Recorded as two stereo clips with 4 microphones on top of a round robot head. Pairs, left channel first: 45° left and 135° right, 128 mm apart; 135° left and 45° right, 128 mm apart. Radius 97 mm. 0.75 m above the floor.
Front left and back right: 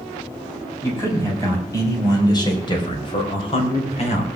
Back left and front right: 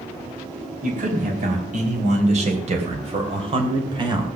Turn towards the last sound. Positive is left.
turn(degrees=10)